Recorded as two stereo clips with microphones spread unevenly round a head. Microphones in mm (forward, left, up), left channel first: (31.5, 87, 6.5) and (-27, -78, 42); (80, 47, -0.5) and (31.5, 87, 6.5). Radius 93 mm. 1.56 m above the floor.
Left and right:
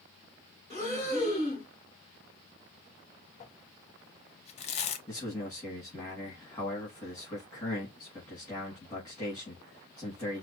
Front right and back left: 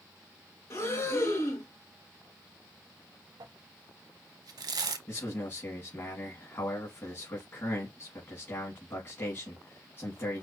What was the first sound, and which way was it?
Breathing, 5° right.